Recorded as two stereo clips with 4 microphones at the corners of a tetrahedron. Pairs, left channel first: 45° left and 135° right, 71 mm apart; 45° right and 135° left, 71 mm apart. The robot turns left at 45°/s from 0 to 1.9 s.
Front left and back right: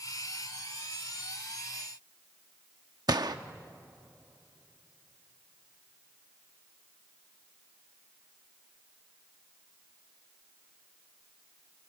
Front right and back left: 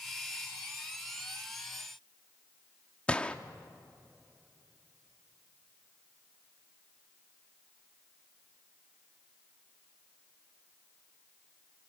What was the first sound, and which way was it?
A gunshot, 120° right.